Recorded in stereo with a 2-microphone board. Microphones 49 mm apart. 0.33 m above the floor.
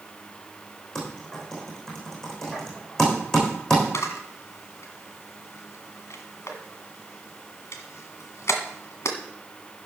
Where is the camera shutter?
70° left (ahead or behind), 1.6 m.